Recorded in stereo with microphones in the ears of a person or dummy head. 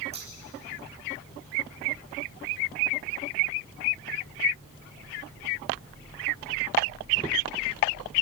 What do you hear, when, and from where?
0.1 s scissors: 30° right (ahead or behind), 2.5 m